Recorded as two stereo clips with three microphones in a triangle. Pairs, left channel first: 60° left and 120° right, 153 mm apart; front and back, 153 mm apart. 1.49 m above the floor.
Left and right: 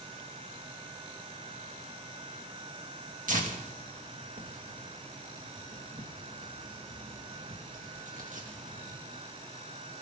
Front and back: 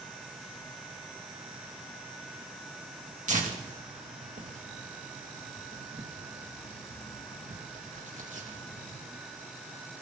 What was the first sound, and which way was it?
Tearing paper, 150° right.